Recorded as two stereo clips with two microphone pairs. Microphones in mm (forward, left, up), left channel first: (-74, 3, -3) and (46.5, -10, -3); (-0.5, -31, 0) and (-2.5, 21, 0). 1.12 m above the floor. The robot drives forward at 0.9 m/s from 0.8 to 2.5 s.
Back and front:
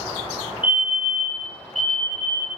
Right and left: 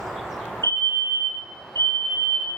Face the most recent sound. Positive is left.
turn(degrees=-110)